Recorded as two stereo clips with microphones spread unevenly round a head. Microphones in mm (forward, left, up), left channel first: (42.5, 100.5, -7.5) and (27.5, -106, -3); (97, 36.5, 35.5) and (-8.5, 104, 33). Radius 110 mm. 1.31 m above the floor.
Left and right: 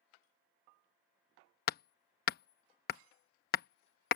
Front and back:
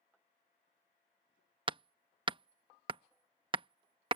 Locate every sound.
1.7 s hammering: 115° left